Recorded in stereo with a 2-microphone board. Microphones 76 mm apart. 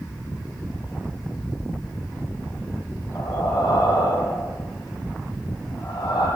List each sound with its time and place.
3.1 s breathing: 65° left (ahead or behind), 7.5 m